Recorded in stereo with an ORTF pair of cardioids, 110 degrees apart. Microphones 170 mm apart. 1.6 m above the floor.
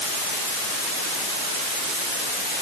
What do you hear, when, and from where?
Only background noise.